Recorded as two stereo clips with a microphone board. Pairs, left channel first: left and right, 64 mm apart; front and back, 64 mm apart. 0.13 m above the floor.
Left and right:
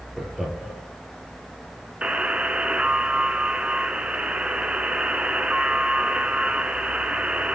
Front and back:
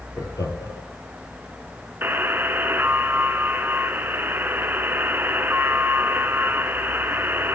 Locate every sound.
0.2 s laughter: 5° right, 2.5 m
2.0 s a buzzer: 150° right, 0.6 m